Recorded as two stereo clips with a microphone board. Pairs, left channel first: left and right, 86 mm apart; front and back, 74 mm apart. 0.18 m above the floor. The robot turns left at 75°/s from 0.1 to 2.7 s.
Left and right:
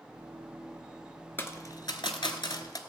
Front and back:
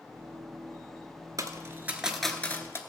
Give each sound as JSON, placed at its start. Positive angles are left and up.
{"t": 1.4, "sound": "a dropped coin", "azimuth_deg": 155, "distance_m": 1.1}